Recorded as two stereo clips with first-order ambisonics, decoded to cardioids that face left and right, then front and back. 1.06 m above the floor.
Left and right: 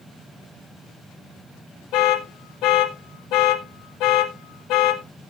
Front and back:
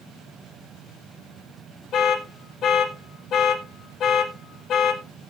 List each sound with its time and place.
1.9 s an alarm: 55° left, 1.4 m